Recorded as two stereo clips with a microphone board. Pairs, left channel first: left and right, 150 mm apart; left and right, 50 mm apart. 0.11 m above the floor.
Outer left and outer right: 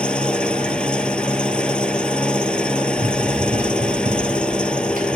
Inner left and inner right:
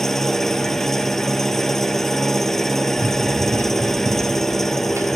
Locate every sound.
0.0 s an engine running: 5° left (ahead or behind), 1.0 m
3.0 s running footsteps: 70° right (ahead or behind), 3 m; by 5.2 s 85° right, 3.5 m